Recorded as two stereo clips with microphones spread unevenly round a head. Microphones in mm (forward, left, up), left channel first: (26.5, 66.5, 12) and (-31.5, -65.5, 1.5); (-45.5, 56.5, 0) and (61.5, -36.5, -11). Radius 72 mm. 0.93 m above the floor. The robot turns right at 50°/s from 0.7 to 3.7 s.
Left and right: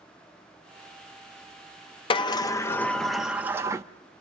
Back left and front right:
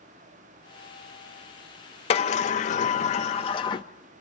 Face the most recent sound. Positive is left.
turn(degrees=-170)